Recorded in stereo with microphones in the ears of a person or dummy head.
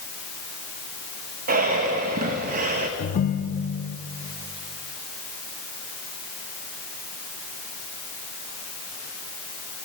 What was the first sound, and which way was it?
Breathing, 45° right (ahead or behind).